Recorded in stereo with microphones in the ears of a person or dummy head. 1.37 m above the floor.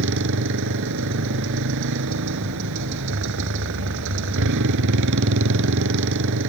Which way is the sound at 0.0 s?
65° right (ahead or behind).